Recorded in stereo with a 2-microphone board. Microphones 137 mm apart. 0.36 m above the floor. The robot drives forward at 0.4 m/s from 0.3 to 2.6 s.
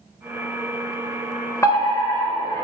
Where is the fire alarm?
20° left (ahead or behind), 2 m; by 2.6 s 25° left (ahead or behind), 1.9 m.